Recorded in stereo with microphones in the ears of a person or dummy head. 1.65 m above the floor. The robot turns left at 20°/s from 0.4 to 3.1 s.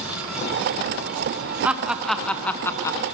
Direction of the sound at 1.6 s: 15° right (ahead or behind).